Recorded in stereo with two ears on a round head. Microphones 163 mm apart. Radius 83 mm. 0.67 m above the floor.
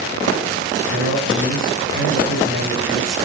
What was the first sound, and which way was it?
A man speaking, 75° right (ahead or behind).